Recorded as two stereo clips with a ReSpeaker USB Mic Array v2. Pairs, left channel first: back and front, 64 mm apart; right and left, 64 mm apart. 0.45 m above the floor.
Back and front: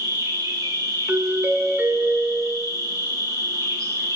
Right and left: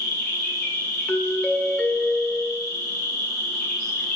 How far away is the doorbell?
About 1.5 m.